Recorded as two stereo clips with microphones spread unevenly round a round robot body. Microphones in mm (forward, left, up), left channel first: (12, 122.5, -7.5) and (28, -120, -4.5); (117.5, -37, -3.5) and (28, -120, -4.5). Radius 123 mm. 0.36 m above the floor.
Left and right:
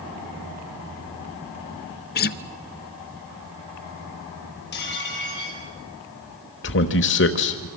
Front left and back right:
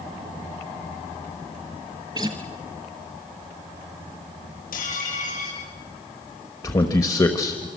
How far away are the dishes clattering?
About 7.5 m.